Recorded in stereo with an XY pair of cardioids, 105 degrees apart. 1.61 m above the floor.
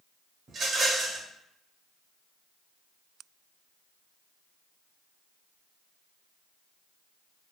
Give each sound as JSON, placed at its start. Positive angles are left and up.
{"t": 0.5, "sound": "a rattle", "azimuth_deg": -40, "distance_m": 0.9}